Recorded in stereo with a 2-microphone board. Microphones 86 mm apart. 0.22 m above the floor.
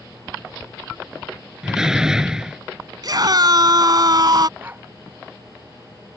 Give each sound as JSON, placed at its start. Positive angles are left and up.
{"t": 1.6, "sound": "a door slam", "side_deg": -10}
{"t": 3.0, "sound": "a scream", "side_deg": -50}
{"t": 4.6, "sound": "a dog barking", "side_deg": -20}